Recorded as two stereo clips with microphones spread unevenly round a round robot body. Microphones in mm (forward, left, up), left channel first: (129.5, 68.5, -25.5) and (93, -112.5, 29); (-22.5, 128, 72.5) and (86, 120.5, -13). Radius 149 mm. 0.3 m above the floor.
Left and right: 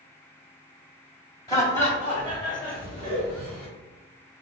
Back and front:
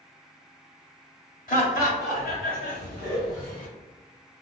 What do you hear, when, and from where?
1.5 s laughter: 165° left, 1.0 m; by 3.7 s 150° right, 1.7 m